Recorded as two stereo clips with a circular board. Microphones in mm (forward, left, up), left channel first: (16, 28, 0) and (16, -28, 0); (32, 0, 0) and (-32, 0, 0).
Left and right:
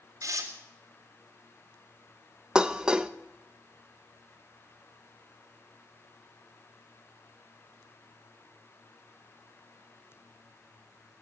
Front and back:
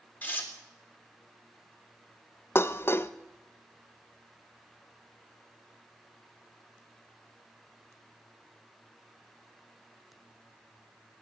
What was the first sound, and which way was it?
Tearing paper, 65° right.